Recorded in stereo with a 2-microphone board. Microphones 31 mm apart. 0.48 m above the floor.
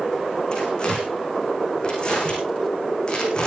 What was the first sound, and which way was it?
Tearing paper, 30° left (ahead or behind).